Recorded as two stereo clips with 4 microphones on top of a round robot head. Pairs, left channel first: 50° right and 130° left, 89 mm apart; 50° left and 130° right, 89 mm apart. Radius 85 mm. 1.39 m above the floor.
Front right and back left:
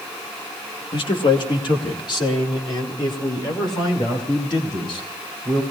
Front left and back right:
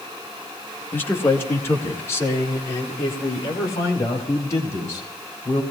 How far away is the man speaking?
About 1.8 m.